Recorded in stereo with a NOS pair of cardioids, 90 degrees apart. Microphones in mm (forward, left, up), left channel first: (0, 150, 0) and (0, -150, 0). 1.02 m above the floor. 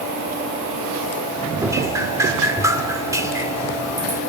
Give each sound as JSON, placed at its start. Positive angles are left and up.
{"t": 1.6, "sound": "dripping", "azimuth_deg": -10, "distance_m": 1.4}